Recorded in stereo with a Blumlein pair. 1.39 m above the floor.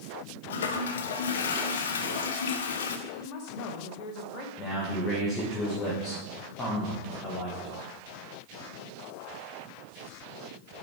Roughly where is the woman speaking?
Ahead left.